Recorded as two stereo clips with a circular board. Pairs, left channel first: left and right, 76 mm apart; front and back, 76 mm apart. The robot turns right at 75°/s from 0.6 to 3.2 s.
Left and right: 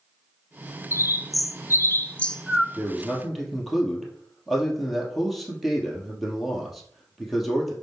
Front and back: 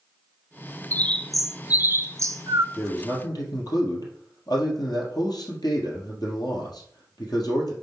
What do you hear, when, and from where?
0.9 s a bird: 55° left, 0.5 m; by 2.6 s 175° right, 0.5 m
2.7 s a man speaking: 35° right, 2.5 m; by 7.7 s straight ahead, 2.5 m